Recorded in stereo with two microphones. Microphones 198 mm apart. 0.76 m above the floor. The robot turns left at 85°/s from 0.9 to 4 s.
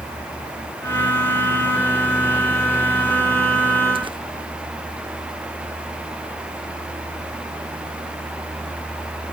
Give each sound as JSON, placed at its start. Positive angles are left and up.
{"t": 4.0, "sound": "tearing paper", "side_deg": -25, "distance_m": 0.9}